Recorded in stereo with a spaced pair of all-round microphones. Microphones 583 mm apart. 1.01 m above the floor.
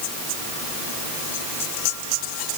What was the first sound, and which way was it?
Only background noise.